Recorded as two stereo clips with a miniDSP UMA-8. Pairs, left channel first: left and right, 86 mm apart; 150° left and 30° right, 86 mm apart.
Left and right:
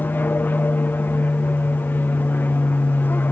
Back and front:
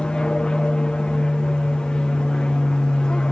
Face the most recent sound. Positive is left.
turn(degrees=90)